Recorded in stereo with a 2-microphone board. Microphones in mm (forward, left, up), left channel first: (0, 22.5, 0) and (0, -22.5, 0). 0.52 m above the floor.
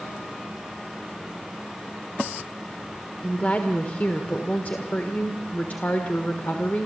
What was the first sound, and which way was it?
A woman speaking, 40° left (ahead or behind).